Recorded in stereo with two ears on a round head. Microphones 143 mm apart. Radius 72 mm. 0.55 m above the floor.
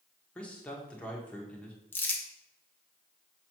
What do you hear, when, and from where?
0.3 s a man speaking: 10° left (ahead or behind), 1.4 m
1.9 s crumpling: 15° left (ahead or behind), 1.1 m